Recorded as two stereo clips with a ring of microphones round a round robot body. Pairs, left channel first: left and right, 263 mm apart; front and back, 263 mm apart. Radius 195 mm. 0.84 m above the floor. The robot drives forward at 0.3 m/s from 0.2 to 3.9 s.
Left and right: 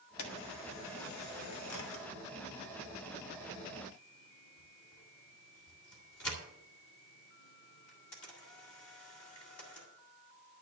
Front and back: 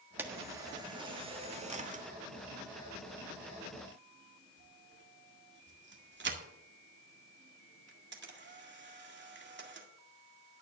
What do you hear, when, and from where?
0.2 s a camera shutter: 100° left, 1.5 m; by 9.9 s 130° left, 2.0 m